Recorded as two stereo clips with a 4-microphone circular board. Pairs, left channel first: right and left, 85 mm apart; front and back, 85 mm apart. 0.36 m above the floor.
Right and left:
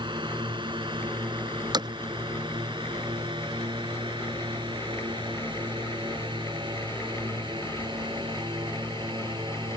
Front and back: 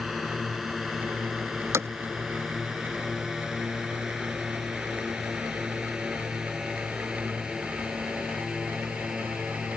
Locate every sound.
0.0 s a drone: 90° left; by 9.8 s 100° left
1.7 s hammering: 120° left